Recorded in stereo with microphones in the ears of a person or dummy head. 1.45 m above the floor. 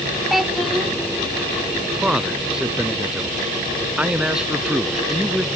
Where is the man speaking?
5° right (ahead or behind).